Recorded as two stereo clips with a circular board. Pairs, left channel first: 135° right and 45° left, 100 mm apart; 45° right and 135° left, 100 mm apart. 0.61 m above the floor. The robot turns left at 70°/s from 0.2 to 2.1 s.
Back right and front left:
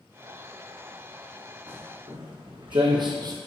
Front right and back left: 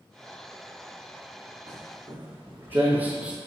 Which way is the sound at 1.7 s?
100° left.